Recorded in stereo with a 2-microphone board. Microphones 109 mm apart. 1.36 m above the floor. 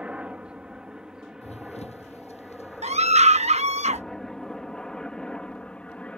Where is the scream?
85° right.